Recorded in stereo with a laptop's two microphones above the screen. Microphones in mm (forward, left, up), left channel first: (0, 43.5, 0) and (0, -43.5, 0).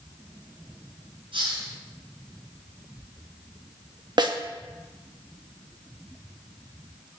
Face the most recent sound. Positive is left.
turn(degrees=-55)  # may be behind; listen again after turning